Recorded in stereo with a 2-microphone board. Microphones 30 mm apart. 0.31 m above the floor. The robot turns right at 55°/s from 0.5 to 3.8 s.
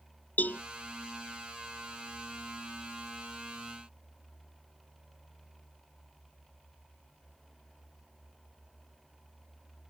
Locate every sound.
0.4 s a cowbell: 70° left (ahead or behind); by 0.6 s 60° left (ahead or behind)